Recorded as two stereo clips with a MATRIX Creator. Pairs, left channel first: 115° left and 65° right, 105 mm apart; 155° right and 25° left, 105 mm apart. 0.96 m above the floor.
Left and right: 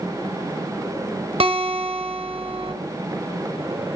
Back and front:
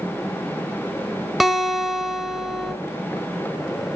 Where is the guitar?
65° right, 1.7 m.